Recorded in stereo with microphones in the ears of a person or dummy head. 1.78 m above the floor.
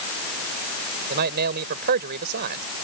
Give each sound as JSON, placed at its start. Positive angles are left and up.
{"t": 1.1, "sound": "a man speaking", "side_deg": -45}